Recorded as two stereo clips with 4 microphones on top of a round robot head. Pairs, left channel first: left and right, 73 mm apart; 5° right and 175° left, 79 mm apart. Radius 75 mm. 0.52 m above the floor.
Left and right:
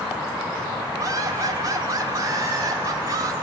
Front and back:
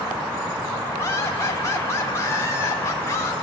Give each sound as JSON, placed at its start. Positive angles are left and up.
{"t": 1.0, "sound": "laughter", "azimuth_deg": -55, "distance_m": 1.9}